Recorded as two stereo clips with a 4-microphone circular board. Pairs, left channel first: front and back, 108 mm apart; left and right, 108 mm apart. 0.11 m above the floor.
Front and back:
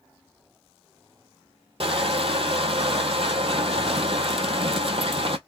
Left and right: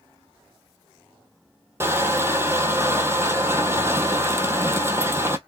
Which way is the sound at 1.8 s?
155° right.